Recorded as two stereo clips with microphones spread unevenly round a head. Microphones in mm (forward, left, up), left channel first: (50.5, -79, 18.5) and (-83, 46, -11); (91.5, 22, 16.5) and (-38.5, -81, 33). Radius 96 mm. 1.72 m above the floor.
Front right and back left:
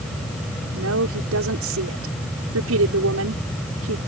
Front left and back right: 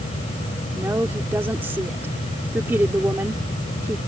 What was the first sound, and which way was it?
A woman speaking, 140° left.